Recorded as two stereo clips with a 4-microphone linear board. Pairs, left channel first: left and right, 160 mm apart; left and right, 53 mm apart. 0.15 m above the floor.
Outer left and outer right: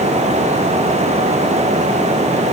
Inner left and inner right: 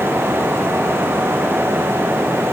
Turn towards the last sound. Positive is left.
No sound to turn to.